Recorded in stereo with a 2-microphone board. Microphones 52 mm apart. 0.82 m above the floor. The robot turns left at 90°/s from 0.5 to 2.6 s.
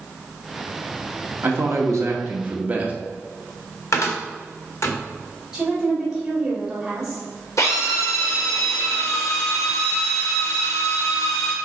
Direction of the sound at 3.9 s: 65° left (ahead or behind).